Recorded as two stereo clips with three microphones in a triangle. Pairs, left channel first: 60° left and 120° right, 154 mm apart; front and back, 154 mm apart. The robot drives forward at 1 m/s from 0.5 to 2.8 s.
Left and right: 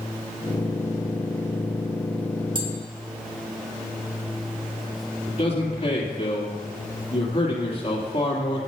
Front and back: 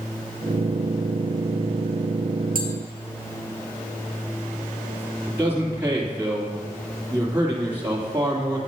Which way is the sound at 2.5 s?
175° right.